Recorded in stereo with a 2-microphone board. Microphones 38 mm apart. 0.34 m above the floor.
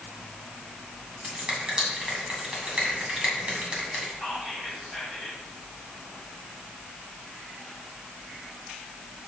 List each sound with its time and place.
1.2 s a finger snap: 25° right (ahead or behind), 2 m
4.2 s whispering: 5° right (ahead or behind), 2 m